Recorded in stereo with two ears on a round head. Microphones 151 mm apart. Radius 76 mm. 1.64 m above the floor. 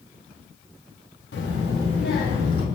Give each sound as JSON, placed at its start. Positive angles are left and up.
{"t": 1.3, "sound": "a child speaking", "side_deg": 75, "distance_m": 2.5}